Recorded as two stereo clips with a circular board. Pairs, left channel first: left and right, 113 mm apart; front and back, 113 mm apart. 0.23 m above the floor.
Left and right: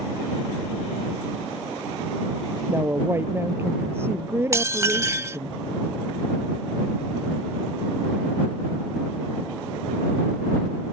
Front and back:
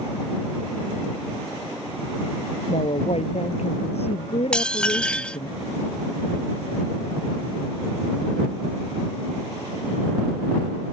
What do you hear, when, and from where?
2.7 s a woman speaking: 25° right
4.5 s dishes clattering: 70° right